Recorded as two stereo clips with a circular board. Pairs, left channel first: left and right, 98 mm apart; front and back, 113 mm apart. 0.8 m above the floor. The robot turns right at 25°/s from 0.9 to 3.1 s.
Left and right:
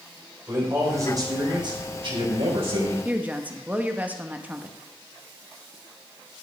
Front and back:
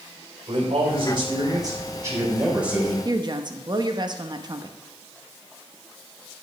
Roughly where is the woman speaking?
Behind.